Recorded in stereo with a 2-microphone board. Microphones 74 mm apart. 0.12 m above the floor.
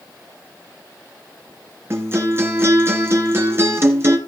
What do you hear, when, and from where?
1.9 s a guitar: 35° right (ahead or behind), 1.9 m